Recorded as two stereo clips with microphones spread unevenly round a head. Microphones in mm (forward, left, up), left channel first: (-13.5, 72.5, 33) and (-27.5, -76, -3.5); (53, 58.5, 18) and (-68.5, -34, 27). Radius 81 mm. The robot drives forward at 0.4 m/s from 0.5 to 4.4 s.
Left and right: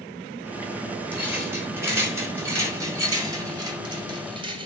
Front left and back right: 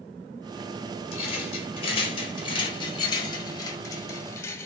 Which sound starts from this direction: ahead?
A rattle, at 1.1 s.